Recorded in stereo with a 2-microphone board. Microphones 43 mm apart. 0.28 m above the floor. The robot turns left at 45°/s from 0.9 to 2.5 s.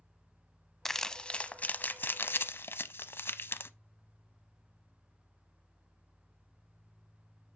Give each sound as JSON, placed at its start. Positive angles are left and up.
{"t": 0.8, "sound": "crumpling", "side_deg": 5, "distance_m": 0.6}